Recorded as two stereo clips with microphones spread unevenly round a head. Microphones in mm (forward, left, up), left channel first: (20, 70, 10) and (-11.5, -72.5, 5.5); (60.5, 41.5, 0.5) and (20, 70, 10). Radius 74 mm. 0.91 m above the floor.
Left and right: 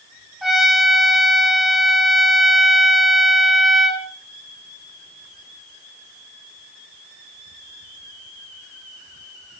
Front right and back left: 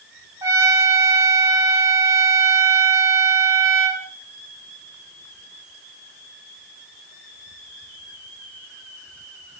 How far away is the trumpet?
About 3 m.